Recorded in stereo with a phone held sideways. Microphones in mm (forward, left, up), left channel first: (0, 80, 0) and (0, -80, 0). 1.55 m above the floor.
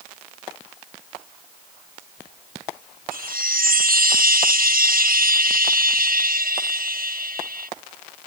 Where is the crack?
No crack in this recording.